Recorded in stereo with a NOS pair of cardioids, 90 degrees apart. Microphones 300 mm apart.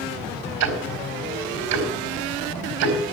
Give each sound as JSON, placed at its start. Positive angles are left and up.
{"t": 0.6, "sound": "ticking", "azimuth_deg": -70, "distance_m": 4.0}